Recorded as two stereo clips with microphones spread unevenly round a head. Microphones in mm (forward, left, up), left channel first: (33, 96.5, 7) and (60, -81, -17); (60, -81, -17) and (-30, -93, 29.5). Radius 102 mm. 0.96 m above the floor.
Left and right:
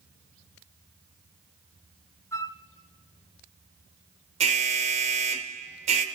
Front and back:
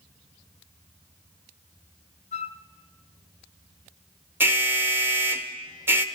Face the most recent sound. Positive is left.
turn(degrees=-80)